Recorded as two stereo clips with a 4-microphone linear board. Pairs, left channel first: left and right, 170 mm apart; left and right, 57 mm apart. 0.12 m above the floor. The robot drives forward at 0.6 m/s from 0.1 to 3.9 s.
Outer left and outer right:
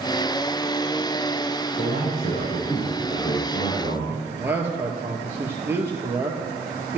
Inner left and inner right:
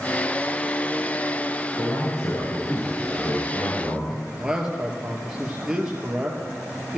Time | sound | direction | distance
1.8 | a man speaking | 80° left | 6.5 m
4.1 | a man speaking | 10° right (ahead or behind) | 2.5 m